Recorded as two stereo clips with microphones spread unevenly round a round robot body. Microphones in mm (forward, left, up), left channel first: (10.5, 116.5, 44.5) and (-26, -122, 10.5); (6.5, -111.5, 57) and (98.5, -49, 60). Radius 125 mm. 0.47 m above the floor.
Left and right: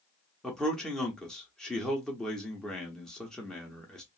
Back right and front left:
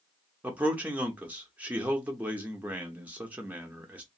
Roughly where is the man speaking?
Ahead right.